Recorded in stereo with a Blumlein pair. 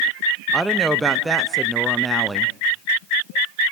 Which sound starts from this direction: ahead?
A woman speaking, at 0.5 s.